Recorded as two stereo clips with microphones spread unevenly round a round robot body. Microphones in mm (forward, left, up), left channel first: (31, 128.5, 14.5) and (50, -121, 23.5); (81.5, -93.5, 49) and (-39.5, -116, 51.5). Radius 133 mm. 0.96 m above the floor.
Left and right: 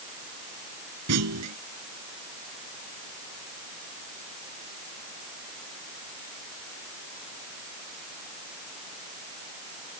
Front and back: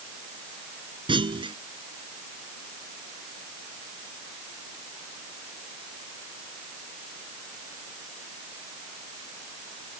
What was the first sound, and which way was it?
A clunk, 120° right.